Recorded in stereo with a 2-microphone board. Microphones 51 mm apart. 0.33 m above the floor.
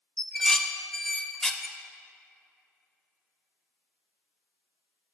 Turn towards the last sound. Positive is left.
turn(degrees=10)  # may be behind; listen again after turning